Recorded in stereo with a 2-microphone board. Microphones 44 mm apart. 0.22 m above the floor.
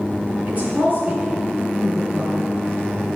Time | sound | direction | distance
0.5 | a woman speaking | 35° right (ahead or behind) | 2.5 m